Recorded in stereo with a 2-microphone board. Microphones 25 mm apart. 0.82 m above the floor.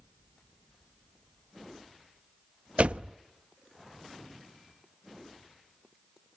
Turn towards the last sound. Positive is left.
turn(degrees=-55)  # may be behind; listen again after turning